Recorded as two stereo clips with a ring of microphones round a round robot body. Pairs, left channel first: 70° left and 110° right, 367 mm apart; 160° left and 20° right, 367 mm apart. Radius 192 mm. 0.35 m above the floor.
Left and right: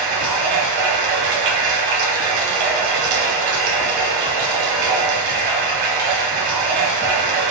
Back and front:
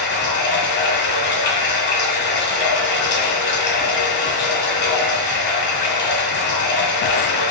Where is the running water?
140° right, 1.4 m.